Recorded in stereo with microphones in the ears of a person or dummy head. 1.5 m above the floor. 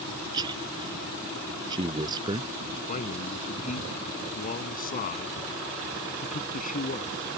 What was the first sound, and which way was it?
A man speaking, 25° right (ahead or behind).